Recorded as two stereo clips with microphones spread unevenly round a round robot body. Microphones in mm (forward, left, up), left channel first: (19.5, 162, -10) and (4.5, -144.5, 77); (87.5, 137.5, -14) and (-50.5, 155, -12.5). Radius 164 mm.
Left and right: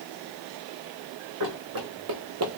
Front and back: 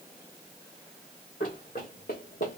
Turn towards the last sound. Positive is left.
turn(degrees=-50)